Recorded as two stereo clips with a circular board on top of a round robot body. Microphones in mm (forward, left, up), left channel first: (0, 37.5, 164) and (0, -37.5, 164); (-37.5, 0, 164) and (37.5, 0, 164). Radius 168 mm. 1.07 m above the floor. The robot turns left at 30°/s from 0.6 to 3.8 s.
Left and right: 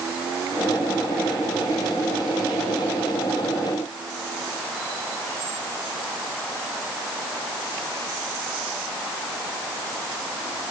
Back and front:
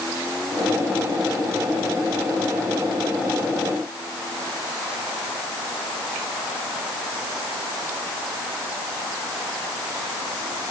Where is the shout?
No shout in this recording.